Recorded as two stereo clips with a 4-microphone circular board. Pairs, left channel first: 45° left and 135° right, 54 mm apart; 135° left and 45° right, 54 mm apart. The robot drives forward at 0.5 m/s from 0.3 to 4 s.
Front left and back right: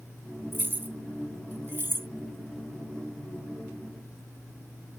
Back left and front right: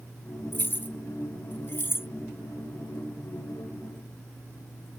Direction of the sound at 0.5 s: Straight behind.